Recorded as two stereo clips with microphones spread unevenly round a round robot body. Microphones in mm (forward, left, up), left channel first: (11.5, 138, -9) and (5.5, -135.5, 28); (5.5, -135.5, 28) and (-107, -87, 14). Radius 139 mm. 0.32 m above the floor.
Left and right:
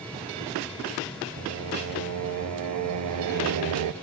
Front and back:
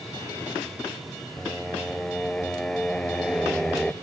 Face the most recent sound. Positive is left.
turn(degrees=-110)